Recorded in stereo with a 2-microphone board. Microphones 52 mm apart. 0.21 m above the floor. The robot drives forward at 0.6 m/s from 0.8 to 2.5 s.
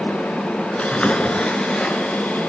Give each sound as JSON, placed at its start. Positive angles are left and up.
{"t": 0.8, "sound": "a splash", "side_deg": 25, "distance_m": 0.8}